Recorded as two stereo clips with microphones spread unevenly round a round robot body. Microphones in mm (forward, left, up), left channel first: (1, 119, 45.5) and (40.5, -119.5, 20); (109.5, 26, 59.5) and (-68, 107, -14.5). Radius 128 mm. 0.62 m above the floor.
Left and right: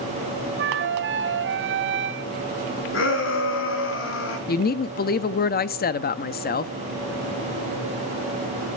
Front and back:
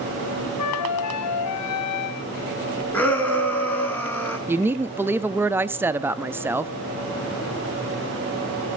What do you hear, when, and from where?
0.6 s a flute: 40° right, 0.9 m
2.9 s a shout: 60° left, 7.5 m
4.5 s a woman speaking: 130° left, 0.8 m